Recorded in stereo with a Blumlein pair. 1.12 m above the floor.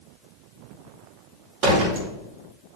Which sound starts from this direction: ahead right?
A door slam, at 1.6 s.